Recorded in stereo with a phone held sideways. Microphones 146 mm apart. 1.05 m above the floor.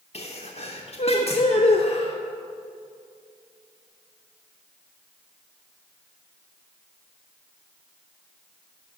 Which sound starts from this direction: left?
A sneeze, at 0.1 s.